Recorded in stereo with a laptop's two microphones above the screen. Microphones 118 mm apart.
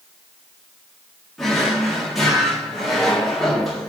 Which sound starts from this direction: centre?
A drawer, at 1.4 s.